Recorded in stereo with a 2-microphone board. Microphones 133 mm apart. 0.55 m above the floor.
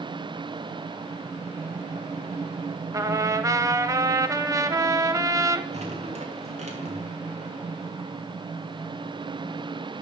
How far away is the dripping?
About 2 m.